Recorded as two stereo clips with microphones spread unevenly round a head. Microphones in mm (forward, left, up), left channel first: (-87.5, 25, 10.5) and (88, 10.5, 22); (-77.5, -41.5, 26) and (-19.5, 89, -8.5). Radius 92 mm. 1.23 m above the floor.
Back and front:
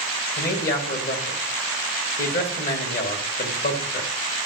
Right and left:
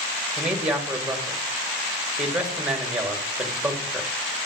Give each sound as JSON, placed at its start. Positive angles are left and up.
{"t": 0.4, "sound": "a man speaking", "azimuth_deg": 145, "distance_m": 1.6}